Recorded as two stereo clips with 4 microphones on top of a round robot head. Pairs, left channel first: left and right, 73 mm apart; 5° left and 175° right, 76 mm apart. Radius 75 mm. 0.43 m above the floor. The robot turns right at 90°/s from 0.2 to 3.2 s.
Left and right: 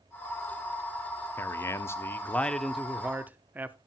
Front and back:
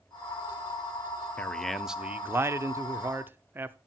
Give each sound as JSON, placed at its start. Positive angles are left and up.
{"t": 1.4, "sound": "a man speaking", "azimuth_deg": 60, "distance_m": 0.9}